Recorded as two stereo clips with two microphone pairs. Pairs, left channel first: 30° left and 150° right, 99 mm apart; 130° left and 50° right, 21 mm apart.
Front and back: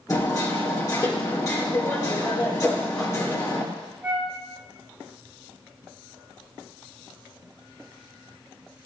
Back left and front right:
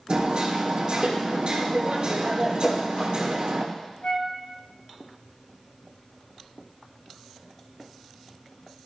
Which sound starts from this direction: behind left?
A flute, at 4.0 s.